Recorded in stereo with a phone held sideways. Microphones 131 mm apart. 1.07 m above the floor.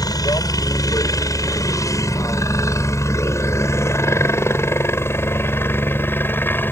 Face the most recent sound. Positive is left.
turn(degrees=15)  # may be behind; listen again after turning